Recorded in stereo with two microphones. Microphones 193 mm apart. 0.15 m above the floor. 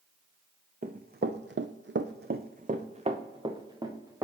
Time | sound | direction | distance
0.8 | running footsteps | 45° right (ahead or behind) | 0.7 m